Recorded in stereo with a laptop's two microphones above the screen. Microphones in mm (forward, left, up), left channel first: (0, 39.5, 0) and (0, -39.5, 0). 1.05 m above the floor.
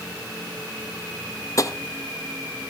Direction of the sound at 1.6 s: 45° left (ahead or behind).